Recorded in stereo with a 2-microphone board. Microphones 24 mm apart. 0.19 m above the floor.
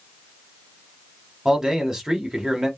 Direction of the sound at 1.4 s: 20° right (ahead or behind).